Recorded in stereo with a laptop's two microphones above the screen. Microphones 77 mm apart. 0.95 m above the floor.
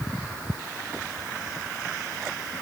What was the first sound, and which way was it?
Only background noise.